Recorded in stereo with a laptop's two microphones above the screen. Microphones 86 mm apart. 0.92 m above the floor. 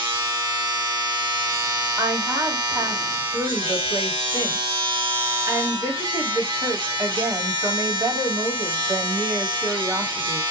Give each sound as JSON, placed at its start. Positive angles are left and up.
{"t": 0.0, "sound": "a machine running", "side_deg": -70, "distance_m": 1.0}
{"t": 2.0, "sound": "a woman speaking", "side_deg": -35, "distance_m": 1.8}